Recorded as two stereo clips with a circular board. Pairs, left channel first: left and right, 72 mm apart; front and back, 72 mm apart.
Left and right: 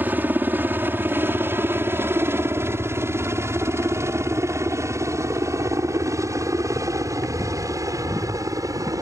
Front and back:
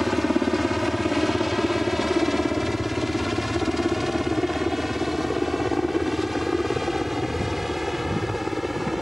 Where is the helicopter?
95° right.